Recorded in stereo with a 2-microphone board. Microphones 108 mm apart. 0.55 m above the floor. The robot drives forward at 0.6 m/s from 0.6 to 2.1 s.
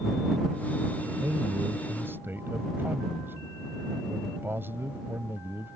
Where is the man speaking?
25° right (ahead or behind); by 5.8 s 20° right (ahead or behind).